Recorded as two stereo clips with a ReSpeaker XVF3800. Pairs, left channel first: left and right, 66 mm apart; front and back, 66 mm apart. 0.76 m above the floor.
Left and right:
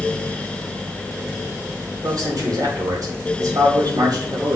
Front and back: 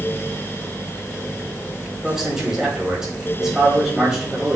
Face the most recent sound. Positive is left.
turn(degrees=-100)